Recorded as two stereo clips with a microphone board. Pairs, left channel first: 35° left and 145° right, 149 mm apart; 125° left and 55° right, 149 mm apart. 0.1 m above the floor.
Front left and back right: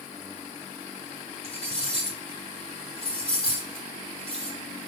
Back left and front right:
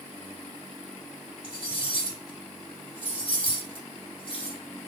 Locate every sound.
1.4 s cutlery clinking: 170° left, 2.5 m